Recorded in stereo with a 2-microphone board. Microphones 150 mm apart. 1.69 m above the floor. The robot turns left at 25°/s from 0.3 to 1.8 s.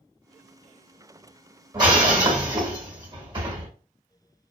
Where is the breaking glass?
30° right (ahead or behind), 1.8 m.